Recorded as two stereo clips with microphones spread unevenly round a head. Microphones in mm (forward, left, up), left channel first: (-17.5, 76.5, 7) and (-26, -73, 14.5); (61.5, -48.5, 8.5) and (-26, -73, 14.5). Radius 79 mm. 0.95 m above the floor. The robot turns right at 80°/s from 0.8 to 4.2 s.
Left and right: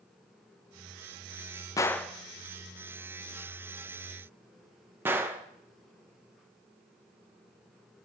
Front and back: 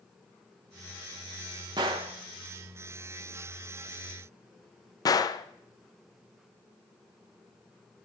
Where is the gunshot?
150° left, 0.5 m; by 5.5 s 15° right, 0.5 m.